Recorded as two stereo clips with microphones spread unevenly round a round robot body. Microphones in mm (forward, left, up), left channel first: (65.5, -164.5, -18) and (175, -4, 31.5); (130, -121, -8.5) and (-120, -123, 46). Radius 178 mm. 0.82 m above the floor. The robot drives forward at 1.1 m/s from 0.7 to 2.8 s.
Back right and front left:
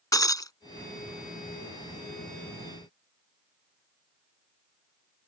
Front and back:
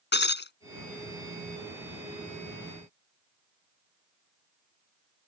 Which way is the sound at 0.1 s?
50° right.